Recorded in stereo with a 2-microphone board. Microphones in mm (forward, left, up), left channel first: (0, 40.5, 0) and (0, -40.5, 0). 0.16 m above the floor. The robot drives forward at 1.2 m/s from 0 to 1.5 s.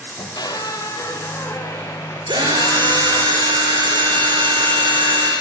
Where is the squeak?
65° left (ahead or behind), 1.5 m; by 3.3 s 35° left (ahead or behind), 2.5 m.